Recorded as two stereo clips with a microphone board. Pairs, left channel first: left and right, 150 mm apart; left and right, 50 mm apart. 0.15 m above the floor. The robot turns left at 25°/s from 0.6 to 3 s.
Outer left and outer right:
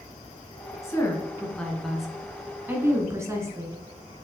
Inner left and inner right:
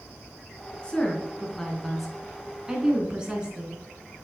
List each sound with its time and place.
0.8 s a woman speaking: 20° left (ahead or behind), 1.7 m; by 3.8 s 20° right (ahead or behind), 1.7 m